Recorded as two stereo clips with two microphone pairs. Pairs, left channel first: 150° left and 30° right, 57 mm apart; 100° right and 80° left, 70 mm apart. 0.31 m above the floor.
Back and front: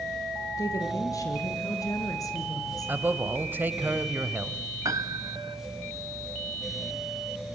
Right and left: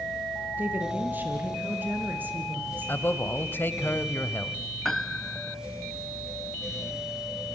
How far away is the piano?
About 0.6 m.